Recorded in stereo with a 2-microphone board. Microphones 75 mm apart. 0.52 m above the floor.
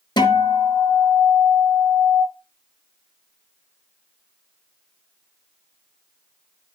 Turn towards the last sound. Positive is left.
turn(degrees=80)